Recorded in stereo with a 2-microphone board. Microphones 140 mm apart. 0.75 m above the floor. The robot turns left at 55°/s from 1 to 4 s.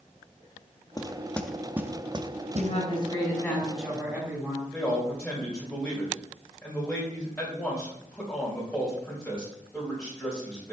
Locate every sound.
1.0 s knocking: 25° left (ahead or behind), 0.5 m; by 2.8 s 60° right (ahead or behind), 0.5 m
2.5 s a woman speaking: 65° left, 4.5 m; by 4.6 s 15° right, 4.5 m
4.7 s a man speaking: 10° left (ahead or behind), 3 m